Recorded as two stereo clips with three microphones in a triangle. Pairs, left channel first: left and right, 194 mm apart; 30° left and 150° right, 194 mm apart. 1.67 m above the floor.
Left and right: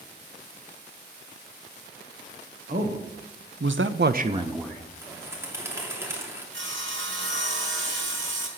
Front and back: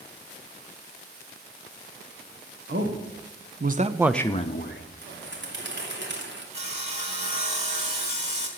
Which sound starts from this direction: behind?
A bird, at 5.0 s.